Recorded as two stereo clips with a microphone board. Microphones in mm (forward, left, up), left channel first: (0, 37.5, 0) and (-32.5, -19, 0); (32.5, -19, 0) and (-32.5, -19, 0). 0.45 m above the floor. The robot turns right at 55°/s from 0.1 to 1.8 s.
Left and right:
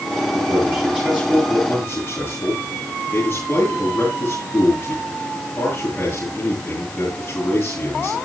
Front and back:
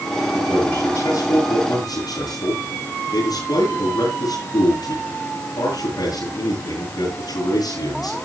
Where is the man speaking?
80° right, 9.5 m; by 8.2 s straight ahead, 9.5 m.